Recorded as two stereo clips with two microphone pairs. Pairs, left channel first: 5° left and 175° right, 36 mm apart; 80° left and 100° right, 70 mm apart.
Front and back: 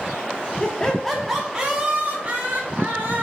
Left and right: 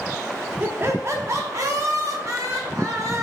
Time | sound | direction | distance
0.6 | laughter | 55° right | 0.9 m